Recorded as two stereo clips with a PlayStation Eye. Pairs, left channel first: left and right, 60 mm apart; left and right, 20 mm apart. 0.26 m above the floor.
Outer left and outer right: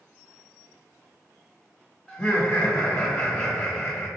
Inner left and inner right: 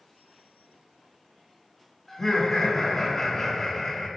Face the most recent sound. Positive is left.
turn(degrees=15)  # may be behind; listen again after turning